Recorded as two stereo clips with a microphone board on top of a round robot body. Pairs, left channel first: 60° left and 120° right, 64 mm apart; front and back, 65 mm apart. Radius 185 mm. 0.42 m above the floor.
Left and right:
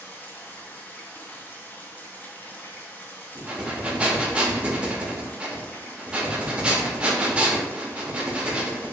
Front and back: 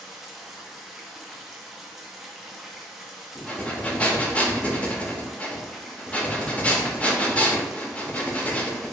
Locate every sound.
0.0 s running water: 95° left, 0.8 m
3.4 s breathing: 55° right, 0.7 m